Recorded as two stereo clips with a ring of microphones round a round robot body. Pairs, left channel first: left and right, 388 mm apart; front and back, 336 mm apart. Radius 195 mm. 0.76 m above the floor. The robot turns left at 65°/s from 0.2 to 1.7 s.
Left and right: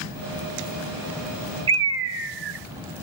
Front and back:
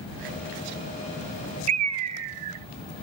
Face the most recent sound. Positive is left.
turn(degrees=-140)